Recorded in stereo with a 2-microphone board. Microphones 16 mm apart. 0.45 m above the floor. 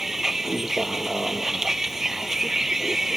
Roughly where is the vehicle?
Right.